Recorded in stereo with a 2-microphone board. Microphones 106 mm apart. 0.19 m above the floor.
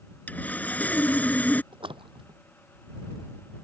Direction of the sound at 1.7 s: 60° right (ahead or behind).